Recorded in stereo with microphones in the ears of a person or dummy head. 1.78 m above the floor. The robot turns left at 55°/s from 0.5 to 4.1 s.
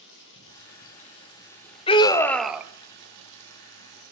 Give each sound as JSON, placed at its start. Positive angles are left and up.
{"t": 0.0, "sound": "running water", "azimuth_deg": 75, "distance_m": 1.9}
{"t": 1.9, "sound": "a scream", "azimuth_deg": 35, "distance_m": 0.6}